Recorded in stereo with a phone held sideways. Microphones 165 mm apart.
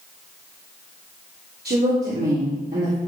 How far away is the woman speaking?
About 3 m.